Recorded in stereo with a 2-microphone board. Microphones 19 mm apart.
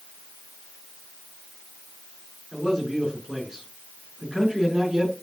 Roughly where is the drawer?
No drawer in this recording.